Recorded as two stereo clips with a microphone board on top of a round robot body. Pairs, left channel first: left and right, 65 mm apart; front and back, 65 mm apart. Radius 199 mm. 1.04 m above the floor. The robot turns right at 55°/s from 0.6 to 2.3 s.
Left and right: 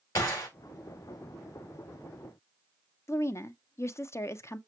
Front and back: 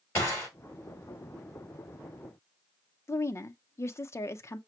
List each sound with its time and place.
0.1 s a gunshot: 50° left, 3.5 m
3.1 s a woman speaking: 45° left, 0.6 m